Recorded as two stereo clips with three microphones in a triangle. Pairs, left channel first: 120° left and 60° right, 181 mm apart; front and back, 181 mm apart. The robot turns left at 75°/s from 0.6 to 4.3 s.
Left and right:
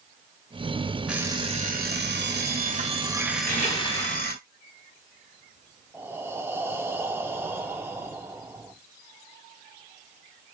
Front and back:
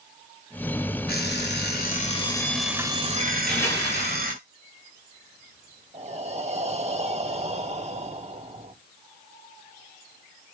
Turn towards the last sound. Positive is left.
turn(degrees=-135)